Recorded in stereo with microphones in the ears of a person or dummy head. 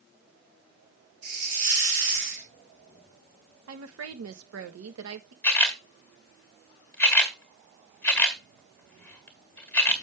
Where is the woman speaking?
80° right, 1.3 m.